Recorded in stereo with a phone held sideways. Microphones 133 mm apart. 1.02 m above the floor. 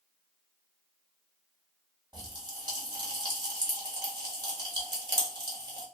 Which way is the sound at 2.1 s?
35° right (ahead or behind).